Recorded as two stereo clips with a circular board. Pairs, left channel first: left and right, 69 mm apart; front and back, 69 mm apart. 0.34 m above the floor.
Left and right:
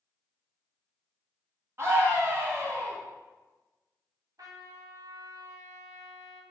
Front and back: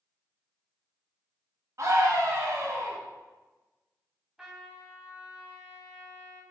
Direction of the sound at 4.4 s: 100° right.